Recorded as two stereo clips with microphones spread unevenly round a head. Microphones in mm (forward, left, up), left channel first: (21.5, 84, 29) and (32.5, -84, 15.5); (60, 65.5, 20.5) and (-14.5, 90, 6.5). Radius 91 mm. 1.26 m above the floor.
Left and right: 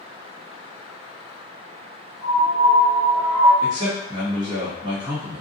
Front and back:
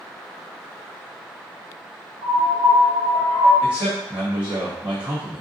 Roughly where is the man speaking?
Behind right.